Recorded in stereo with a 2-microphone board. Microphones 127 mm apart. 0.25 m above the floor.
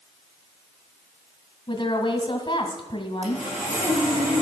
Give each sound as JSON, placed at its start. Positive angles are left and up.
{"t": 1.7, "sound": "a woman speaking", "side_deg": 40, "distance_m": 1.8}
{"t": 3.2, "sound": "sawing", "side_deg": -65, "distance_m": 5.0}